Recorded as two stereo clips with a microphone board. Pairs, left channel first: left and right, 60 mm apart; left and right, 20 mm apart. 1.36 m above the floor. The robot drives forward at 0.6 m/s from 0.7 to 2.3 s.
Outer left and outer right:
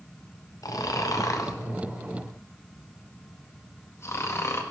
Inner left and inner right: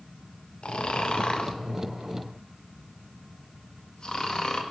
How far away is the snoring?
About 1.5 m.